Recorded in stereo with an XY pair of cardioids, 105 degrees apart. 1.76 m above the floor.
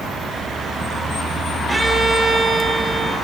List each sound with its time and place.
1.7 s a violin: 25° right, 5.5 m